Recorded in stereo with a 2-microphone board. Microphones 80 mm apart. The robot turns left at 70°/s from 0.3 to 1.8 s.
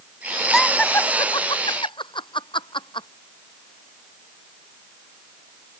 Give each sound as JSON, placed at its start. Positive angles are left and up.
{"t": 0.5, "sound": "laughter", "side_deg": 0}